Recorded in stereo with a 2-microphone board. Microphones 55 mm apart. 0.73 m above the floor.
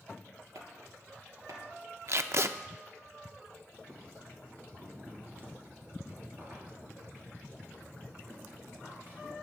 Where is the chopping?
70° right (ahead or behind), 2.5 m.